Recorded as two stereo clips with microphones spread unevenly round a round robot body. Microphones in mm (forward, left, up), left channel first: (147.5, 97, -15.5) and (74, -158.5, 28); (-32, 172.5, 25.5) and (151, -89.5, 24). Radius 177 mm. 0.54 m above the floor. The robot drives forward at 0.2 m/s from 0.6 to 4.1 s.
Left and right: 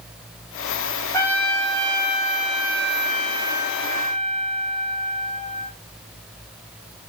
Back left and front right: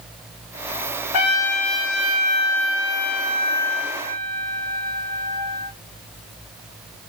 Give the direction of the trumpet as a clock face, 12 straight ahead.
7 o'clock.